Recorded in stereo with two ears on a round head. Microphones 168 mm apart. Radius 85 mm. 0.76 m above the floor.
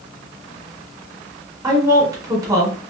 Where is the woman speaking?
20° right (ahead or behind), 1.5 m.